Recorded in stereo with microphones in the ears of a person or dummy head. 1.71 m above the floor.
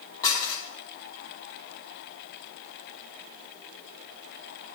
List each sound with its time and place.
0.2 s dishes clattering: 20° left (ahead or behind), 1.6 m